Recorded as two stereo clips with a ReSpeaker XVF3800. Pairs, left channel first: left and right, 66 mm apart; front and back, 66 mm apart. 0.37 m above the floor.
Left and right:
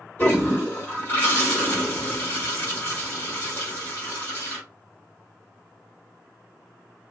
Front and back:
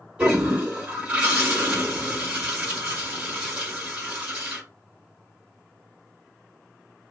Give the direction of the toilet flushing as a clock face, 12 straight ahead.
8 o'clock.